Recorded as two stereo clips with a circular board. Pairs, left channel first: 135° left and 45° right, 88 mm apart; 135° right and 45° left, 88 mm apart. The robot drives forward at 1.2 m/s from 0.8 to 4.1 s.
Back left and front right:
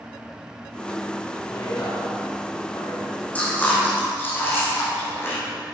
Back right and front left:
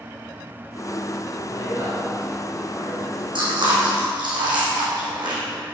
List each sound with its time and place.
1.5 s a woman speaking: 90° left, 5 m; by 3.2 s 110° left, 5.5 m
3.4 s chewing: 65° left, 5.5 m; by 5.4 s 75° left, 5 m